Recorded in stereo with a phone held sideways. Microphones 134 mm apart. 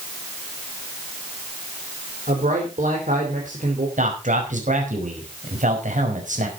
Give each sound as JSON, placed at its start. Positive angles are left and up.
{"t": 2.3, "sound": "a man speaking", "side_deg": -70, "distance_m": 4.5}
{"t": 4.0, "sound": "a man speaking", "side_deg": -70, "distance_m": 5.0}